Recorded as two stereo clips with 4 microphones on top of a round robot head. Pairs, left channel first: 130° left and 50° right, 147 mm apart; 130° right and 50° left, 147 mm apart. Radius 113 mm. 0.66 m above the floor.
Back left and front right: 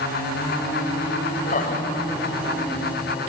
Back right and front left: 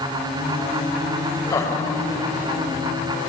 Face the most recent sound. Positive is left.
turn(degrees=160)